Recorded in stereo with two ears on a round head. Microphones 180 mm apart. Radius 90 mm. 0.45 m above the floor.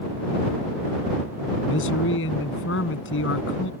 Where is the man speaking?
75° left (ahead or behind).